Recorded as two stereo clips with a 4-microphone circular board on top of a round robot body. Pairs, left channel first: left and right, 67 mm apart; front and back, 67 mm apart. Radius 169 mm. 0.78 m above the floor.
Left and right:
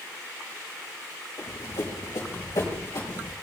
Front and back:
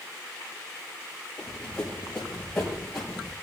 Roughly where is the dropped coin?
I don't hear a dropped coin.